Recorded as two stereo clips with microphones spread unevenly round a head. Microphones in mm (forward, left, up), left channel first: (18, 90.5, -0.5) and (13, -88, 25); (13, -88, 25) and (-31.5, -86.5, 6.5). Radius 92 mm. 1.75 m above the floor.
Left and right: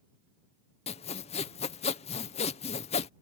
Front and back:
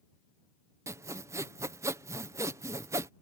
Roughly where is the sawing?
Behind left.